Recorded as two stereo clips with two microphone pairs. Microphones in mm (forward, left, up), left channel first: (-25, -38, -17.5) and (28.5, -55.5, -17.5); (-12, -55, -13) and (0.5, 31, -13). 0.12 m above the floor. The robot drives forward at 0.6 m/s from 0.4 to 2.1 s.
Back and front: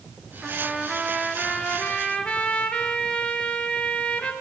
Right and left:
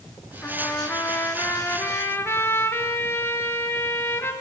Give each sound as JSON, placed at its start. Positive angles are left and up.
{"t": 0.4, "sound": "a trumpet", "azimuth_deg": -80, "distance_m": 1.6}